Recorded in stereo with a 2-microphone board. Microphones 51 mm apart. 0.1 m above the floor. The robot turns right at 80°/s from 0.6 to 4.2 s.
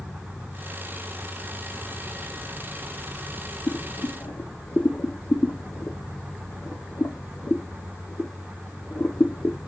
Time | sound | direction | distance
3.7 | boiling | 70° left (ahead or behind) | 1.0 m